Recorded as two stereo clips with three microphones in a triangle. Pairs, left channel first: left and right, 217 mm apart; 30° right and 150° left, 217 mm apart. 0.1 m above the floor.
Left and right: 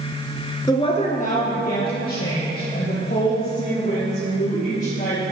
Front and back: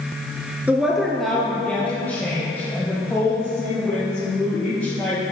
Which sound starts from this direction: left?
A woman speaking, at 0.7 s.